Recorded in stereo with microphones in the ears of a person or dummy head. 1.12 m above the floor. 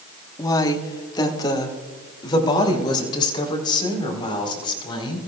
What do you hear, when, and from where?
0.4 s a woman speaking: 20° left (ahead or behind), 1.5 m; by 5.2 s 30° left (ahead or behind), 5.5 m